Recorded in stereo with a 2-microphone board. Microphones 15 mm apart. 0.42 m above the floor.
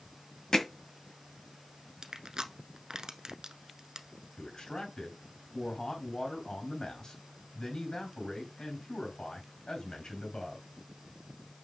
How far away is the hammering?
About 1.8 m.